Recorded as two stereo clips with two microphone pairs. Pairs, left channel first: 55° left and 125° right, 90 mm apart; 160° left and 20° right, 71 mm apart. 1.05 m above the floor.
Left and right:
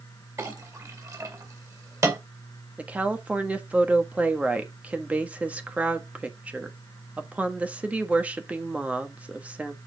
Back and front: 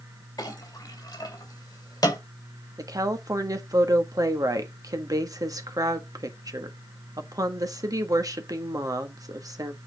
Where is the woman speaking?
50° right, 1.3 m.